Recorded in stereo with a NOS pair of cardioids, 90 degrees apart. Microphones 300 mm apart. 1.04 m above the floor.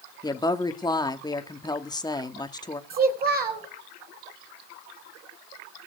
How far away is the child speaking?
About 4 m.